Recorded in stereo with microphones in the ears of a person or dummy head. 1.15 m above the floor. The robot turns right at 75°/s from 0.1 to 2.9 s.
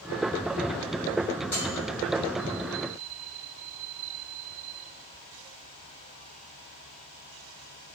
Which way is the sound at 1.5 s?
5° left (ahead or behind).